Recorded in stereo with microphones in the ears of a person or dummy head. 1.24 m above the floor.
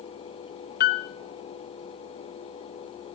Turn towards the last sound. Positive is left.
turn(degrees=55)  # may be behind; listen again after turning